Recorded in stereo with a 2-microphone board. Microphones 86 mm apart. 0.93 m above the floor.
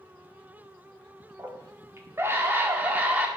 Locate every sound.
1.4 s a scream: 35° right (ahead or behind), 3 m; by 3.3 s 15° right (ahead or behind), 3 m